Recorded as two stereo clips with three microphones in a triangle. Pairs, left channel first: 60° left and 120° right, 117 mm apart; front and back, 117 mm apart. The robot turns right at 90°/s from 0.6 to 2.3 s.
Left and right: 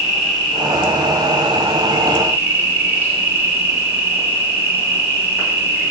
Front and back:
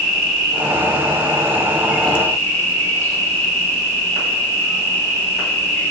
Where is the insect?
150° left, 2 m; by 5.9 s 60° right, 2 m.